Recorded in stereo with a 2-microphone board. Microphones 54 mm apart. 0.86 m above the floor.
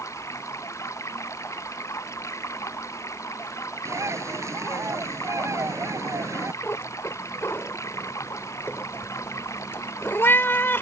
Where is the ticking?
I don't hear ticking.